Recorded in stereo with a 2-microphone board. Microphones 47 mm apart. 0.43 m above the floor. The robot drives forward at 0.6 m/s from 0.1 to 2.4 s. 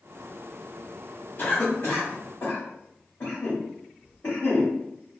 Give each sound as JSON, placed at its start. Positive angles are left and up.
{"t": 1.4, "sound": "a cough", "side_deg": 35, "distance_m": 1.1}